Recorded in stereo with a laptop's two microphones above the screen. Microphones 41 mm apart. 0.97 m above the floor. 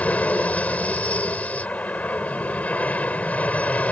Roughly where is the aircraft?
Left.